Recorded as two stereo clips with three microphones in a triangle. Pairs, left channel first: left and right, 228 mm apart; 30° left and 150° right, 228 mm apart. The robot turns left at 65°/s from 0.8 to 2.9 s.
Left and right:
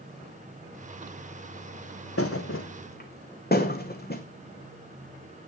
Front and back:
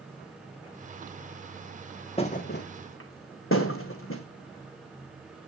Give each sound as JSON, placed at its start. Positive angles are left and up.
{"t": 2.2, "sound": "a thud", "azimuth_deg": 95, "distance_m": 1.8}